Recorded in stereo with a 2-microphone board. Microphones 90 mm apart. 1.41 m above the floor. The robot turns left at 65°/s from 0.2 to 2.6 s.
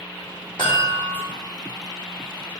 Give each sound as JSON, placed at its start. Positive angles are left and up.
{"t": 0.6, "sound": "a chime", "azimuth_deg": 80, "distance_m": 3.0}